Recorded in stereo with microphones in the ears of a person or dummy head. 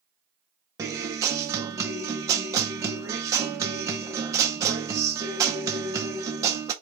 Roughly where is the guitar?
Centre.